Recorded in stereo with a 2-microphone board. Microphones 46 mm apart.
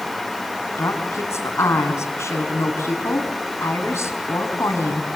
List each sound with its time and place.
0.8 s a woman speaking: 75° left (ahead or behind), 5 m